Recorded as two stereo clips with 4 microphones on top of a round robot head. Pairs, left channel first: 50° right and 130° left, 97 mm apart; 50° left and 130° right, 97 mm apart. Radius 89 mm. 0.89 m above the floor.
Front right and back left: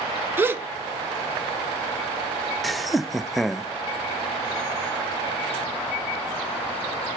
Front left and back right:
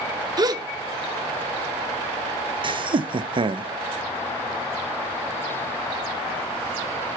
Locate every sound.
0.4 s a gasp: 165° right, 0.9 m
2.6 s laughter: 140° right, 0.5 m